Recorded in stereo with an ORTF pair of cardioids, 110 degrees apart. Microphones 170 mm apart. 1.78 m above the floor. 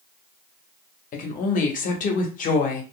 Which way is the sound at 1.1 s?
50° left.